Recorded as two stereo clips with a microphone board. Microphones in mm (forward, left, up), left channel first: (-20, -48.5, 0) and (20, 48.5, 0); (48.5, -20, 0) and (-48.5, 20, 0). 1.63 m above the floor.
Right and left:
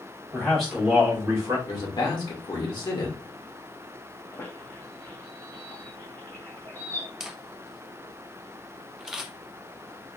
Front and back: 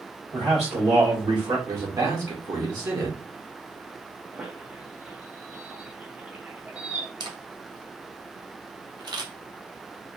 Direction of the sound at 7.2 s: 150° left.